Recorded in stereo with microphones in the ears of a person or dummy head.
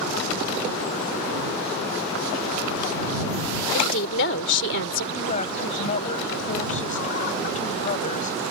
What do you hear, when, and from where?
3.7 s a woman speaking: 65° left (ahead or behind)
5.1 s a woman speaking: 40° left (ahead or behind)